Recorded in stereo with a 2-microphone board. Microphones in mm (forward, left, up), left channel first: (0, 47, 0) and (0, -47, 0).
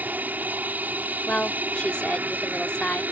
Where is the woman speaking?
10° left (ahead or behind).